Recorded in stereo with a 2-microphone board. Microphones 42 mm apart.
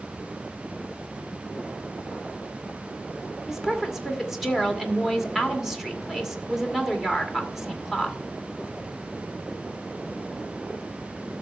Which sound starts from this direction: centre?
A woman speaking, at 3.5 s.